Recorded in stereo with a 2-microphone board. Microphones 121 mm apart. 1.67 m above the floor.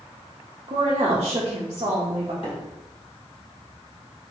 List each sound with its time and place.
0.7 s a woman speaking: 45° right (ahead or behind), 0.6 m
2.4 s a microwave: 50° left (ahead or behind), 0.9 m